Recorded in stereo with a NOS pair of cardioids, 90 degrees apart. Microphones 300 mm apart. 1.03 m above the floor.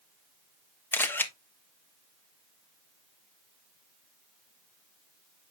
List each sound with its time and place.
0.9 s a camera shutter: 5° left, 1.2 m